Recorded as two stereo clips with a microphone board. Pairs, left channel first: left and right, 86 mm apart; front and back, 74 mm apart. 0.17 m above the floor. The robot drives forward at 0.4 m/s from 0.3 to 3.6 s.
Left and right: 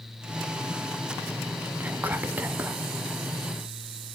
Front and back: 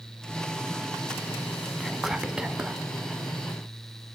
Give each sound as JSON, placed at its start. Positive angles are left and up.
{"t": 1.8, "sound": "whispering", "azimuth_deg": -85, "distance_m": 1.0}